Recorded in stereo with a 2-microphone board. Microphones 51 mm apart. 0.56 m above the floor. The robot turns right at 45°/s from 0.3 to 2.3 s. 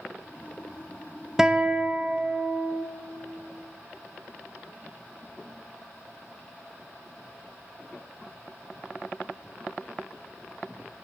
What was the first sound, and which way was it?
A guitar, 10° right (ahead or behind).